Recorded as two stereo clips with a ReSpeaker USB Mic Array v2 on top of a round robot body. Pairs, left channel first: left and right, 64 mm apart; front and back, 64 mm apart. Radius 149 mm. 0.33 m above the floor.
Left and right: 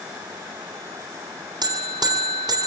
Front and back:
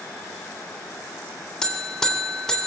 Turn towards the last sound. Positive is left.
turn(degrees=-80)